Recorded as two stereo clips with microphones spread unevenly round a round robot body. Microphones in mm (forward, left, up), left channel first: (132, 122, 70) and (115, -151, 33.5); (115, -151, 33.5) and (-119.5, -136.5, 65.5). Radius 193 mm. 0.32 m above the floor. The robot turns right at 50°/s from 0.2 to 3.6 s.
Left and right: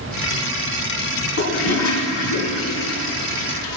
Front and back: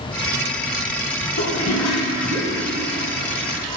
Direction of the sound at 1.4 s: 55° left.